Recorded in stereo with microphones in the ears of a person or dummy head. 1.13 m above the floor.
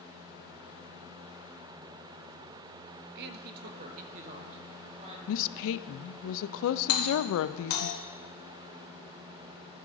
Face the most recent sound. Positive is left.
turn(degrees=70)  # may be behind; listen again after turning